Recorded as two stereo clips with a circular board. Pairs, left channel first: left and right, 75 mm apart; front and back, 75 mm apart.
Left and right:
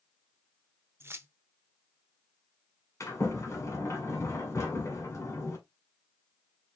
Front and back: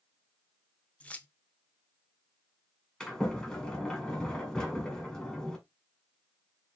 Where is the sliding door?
80° left, 1.7 m.